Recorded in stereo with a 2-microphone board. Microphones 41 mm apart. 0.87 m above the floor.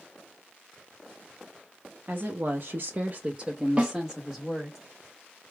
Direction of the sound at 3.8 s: 30° right (ahead or behind).